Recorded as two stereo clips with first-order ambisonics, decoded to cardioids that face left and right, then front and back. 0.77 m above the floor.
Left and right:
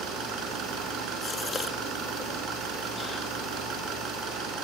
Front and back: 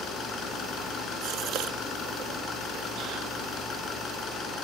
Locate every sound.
0.0 s an engine running: 50° right, 6.5 m
1.2 s a gasp: 160° left, 1.3 m